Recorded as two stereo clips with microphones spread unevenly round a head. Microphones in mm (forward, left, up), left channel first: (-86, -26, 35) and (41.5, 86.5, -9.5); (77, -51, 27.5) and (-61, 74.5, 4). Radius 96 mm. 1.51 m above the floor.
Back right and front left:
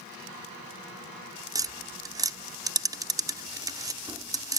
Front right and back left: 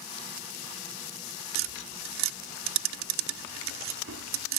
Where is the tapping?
115° left.